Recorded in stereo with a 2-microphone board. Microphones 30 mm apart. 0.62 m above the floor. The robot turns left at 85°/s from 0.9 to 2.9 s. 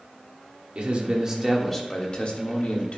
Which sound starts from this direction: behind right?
A man speaking, at 0.8 s.